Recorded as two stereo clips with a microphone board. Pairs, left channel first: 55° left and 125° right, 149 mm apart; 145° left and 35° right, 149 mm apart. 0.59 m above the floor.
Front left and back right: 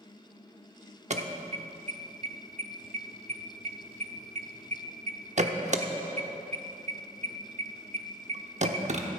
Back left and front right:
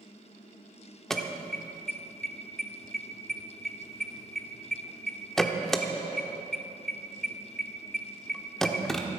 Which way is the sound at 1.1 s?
125° right.